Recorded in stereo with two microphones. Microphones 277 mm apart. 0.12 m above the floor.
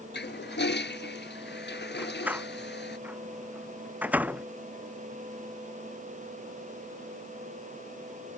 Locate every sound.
0.1 s a toilet flushing: 40° left (ahead or behind)
2.0 s a door slam: 5° right (ahead or behind)